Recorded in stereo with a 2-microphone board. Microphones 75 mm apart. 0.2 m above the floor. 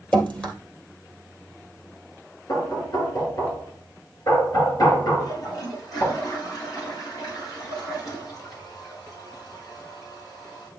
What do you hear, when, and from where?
0.1 s dripping: 20° left (ahead or behind), 2.5 m
2.5 s knocking: 60° left (ahead or behind), 3 m
5.2 s a toilet flushing: 55° left (ahead or behind), 3.5 m